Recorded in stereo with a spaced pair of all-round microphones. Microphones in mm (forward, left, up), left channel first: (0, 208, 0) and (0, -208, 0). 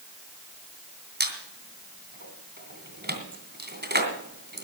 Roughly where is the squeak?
Right.